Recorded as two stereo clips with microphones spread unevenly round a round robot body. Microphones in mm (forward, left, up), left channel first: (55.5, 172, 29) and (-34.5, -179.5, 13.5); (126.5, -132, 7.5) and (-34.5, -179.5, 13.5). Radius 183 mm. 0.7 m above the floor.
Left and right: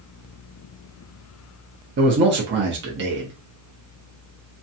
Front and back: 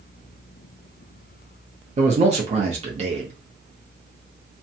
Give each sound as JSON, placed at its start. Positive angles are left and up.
{"t": 2.0, "sound": "a man speaking", "azimuth_deg": -140, "distance_m": 0.7}